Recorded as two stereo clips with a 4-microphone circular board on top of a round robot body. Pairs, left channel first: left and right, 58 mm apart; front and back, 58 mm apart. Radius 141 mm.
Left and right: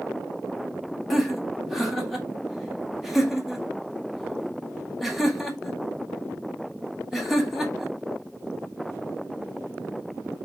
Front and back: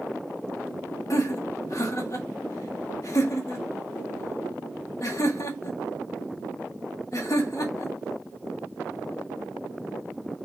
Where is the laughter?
5° right, 1.9 m.